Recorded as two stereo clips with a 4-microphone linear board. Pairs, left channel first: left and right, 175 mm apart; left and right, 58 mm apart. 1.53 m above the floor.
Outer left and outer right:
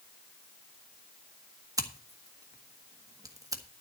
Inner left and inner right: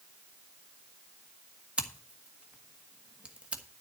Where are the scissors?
20° right (ahead or behind), 1.5 m.